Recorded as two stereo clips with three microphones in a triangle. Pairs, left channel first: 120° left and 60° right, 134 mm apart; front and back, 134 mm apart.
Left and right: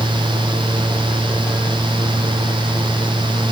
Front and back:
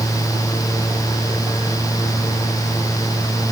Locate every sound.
Only background noise.